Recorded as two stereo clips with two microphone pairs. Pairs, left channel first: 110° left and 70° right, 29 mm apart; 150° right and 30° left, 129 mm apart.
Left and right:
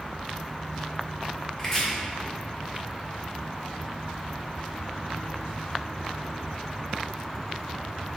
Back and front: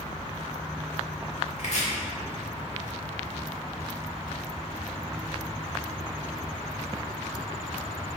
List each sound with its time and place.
1.6 s chopping: 175° right, 1.6 m